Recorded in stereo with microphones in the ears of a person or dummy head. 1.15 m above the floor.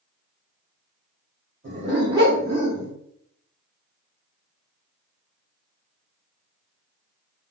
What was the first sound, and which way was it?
A dog barking, 40° right (ahead or behind).